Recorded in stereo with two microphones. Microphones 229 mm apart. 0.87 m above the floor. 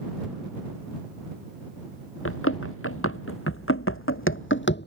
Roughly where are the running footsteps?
Left.